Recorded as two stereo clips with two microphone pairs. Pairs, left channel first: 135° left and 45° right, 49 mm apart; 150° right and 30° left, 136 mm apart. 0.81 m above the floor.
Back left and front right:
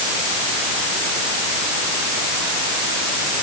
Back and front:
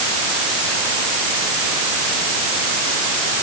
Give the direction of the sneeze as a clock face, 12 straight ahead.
No sneeze in this recording.